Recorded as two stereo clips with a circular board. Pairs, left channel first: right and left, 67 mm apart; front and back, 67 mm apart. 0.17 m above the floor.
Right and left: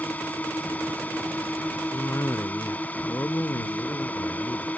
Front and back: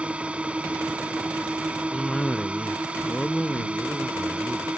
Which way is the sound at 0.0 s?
125° right.